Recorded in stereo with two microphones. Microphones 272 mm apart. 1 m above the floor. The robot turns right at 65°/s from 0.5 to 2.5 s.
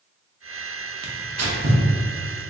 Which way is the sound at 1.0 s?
75° right (ahead or behind).